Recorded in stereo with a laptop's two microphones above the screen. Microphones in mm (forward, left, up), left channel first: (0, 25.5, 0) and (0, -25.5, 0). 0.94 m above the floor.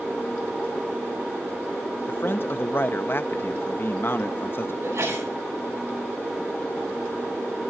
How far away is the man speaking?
About 0.8 m.